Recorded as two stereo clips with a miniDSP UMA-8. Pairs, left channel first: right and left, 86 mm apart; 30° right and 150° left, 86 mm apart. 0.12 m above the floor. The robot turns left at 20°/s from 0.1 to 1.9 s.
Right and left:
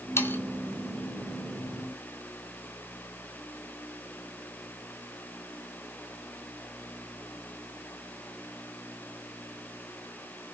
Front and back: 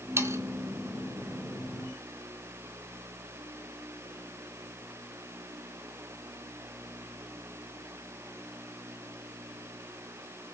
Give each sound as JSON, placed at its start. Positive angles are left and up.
{"t": 0.2, "sound": "sawing", "azimuth_deg": -150, "distance_m": 1.2}